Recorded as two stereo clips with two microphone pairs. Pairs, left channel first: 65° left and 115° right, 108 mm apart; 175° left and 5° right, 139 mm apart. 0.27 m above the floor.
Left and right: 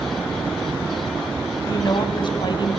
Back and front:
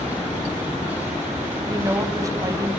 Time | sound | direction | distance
1.7 | a woman speaking | 45° left | 1.7 m